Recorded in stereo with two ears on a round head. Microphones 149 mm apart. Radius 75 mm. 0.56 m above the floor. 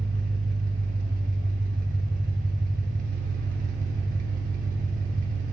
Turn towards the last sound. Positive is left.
turn(degrees=-55)  # may be behind; listen again after turning